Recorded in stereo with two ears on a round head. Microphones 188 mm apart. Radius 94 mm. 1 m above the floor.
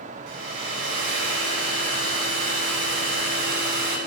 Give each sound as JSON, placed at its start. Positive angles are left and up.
{"t": 0.3, "sound": "a hair dryer", "side_deg": -65, "distance_m": 4.5}